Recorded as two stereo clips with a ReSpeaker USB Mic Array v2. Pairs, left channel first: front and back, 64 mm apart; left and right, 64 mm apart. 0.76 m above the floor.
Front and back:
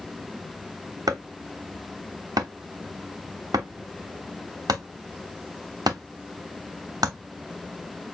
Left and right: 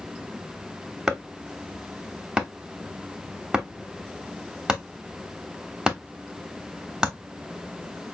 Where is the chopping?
165° right, 0.9 m.